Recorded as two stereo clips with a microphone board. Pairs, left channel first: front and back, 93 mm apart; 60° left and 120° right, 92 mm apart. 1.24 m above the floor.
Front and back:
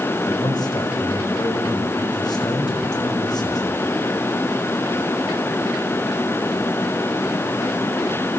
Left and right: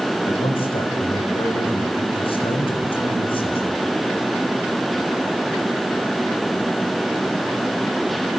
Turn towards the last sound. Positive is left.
turn(degrees=45)